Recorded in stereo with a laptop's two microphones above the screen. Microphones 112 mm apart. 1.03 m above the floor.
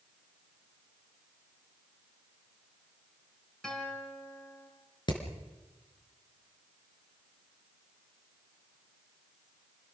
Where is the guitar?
5° left (ahead or behind), 5 m.